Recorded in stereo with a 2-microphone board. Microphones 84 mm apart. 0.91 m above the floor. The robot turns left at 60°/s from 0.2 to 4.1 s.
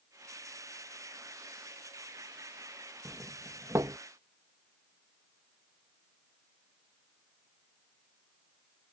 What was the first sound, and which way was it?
A doorbell, 10° right (ahead or behind).